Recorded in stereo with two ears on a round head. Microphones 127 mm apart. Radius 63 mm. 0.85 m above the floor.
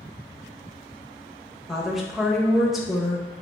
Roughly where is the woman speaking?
Centre.